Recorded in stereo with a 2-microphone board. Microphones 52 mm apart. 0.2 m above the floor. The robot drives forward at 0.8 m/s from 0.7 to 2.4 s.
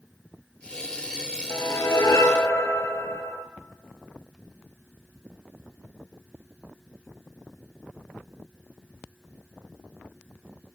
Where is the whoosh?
65° left (ahead or behind), 1.1 m.